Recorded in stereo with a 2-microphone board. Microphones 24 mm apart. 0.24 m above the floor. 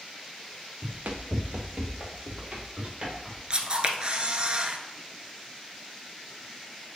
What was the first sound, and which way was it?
Running footsteps, 80° right.